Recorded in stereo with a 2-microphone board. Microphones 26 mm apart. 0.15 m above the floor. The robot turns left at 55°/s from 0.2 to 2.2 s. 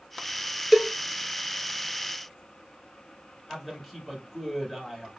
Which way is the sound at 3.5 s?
5° right (ahead or behind).